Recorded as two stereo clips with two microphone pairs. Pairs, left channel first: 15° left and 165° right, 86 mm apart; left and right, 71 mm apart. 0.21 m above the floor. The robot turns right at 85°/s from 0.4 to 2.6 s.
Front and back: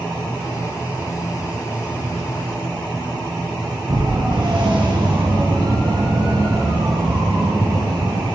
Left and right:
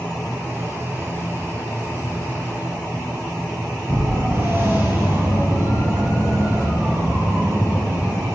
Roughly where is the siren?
Behind right.